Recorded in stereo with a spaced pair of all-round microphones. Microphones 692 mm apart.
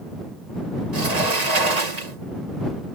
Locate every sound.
0.9 s a sliding door: 65° right (ahead or behind)